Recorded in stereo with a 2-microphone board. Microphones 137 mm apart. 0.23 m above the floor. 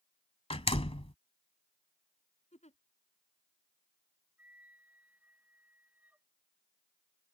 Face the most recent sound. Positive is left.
turn(degrees=-10)  # may be behind; listen again after turning